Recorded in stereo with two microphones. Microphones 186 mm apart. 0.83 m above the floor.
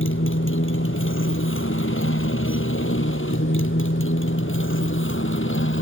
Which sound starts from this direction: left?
A motorcycle, at 0.0 s.